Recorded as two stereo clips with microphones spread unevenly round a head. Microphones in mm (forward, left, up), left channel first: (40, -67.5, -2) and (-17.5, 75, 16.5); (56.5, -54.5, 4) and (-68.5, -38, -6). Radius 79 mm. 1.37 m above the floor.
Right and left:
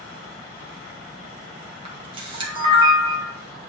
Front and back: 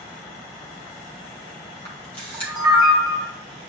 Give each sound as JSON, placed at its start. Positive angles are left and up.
{"t": 1.9, "sound": "a camera shutter", "azimuth_deg": 55, "distance_m": 2.0}